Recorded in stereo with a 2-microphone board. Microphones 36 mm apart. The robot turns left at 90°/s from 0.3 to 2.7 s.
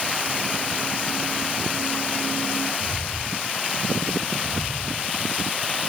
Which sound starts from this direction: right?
Footsteps, at 2.8 s.